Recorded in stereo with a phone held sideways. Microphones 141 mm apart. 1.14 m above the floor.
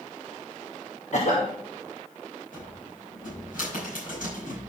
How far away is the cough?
About 1.2 m.